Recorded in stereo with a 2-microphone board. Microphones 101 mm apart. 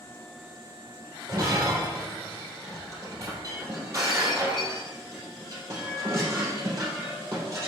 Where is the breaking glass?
30° right (ahead or behind), 3.5 m.